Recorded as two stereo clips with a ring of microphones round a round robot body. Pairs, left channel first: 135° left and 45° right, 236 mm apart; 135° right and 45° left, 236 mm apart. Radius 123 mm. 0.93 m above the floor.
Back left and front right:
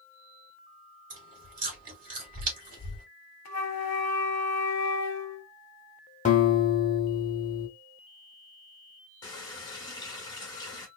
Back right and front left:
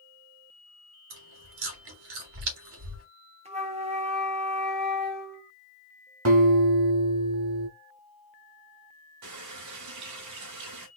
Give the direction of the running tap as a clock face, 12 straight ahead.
10 o'clock.